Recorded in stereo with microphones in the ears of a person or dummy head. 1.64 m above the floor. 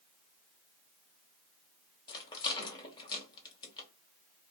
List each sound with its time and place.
2.1 s a rattle: 15° left (ahead or behind), 0.8 m